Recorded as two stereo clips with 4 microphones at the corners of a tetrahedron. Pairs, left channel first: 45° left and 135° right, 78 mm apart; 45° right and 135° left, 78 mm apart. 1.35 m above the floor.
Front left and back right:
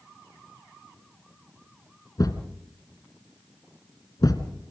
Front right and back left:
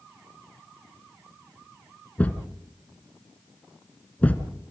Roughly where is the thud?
Ahead left.